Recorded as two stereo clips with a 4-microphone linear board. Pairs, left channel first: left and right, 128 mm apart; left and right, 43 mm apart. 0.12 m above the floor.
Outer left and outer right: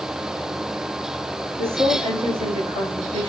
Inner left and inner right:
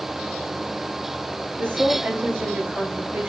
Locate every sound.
1.6 s a woman speaking: 50° right (ahead or behind), 1.7 m